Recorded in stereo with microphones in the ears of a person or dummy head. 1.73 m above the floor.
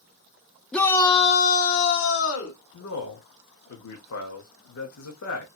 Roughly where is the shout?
Centre.